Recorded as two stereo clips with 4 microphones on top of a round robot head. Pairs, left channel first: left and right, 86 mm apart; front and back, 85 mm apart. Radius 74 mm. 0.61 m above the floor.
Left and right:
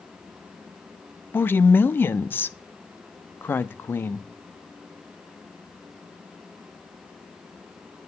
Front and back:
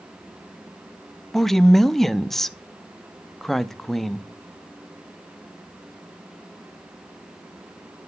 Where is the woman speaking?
85° left, 0.5 m.